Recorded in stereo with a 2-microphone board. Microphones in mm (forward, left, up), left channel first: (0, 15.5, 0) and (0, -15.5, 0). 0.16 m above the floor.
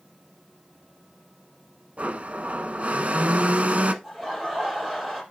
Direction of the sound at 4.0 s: Centre (ahead or behind).